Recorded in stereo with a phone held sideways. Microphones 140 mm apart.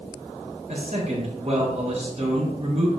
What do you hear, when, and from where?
0.7 s a man speaking: 55° right (ahead or behind), 4.5 m